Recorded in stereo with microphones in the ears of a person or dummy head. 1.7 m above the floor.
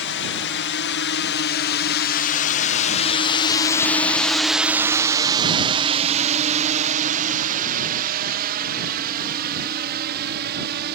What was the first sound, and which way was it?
A drone, 60° left (ahead or behind).